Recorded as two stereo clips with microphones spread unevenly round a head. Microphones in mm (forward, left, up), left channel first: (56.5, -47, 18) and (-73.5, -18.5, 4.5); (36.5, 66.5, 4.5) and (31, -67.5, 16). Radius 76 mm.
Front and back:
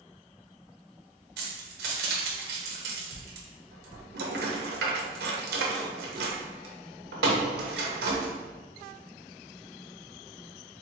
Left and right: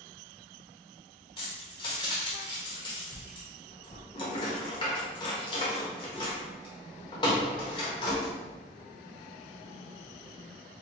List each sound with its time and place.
1.4 s keys jangling: 150° left, 0.7 m